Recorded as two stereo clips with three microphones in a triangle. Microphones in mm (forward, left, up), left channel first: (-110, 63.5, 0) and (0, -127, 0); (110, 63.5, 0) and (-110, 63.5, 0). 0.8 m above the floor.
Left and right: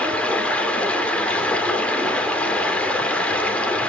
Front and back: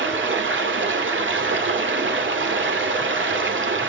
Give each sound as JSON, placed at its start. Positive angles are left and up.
{"t": 0.0, "sound": "running water", "azimuth_deg": -155, "distance_m": 2.5}